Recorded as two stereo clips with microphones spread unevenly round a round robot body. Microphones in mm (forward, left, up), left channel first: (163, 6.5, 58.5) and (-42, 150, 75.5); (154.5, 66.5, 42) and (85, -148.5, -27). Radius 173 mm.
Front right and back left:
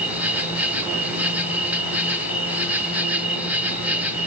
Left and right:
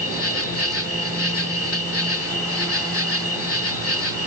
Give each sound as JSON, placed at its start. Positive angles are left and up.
{"t": 0.0, "sound": "an insect", "azimuth_deg": 60, "distance_m": 3.0}